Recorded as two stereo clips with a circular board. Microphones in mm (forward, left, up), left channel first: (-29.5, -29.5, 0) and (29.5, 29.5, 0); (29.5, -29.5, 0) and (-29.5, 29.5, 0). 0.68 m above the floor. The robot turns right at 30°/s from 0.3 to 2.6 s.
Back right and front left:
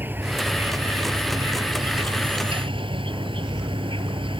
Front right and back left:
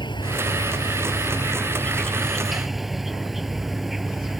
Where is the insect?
20° right; by 4.4 s 50° left.